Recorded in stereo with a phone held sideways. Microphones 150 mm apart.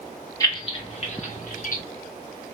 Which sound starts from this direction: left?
Keys jangling, at 0.4 s.